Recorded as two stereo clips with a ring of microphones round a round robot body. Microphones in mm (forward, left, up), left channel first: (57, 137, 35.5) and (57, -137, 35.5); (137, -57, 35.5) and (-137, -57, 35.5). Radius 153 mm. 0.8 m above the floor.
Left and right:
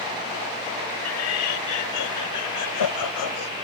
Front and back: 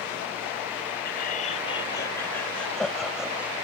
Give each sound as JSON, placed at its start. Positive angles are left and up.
{"t": 1.1, "sound": "laughter", "azimuth_deg": 60}